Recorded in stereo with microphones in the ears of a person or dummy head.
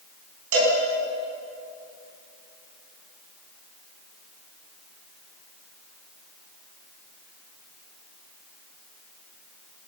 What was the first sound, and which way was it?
A cowbell, 80° right.